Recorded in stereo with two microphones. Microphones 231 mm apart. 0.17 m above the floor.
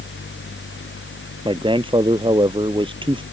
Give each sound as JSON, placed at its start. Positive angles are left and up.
{"t": 1.4, "sound": "a man speaking", "side_deg": -20}